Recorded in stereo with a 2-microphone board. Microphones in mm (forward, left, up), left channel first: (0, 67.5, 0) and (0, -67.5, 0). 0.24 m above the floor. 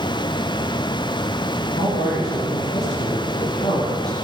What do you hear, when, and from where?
1.8 s a man speaking: 60° left (ahead or behind), 6 m